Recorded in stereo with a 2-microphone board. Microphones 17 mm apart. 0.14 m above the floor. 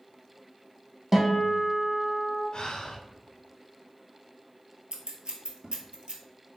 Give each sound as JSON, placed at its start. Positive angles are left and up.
{"t": 1.1, "sound": "a guitar", "side_deg": -20, "distance_m": 1.1}
{"t": 2.5, "sound": "breathing", "side_deg": 50, "distance_m": 0.7}
{"t": 4.9, "sound": "scissors", "side_deg": -60, "distance_m": 0.7}